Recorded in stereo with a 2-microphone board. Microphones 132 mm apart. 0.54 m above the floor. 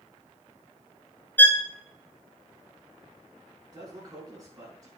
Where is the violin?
15° left (ahead or behind), 1.4 m.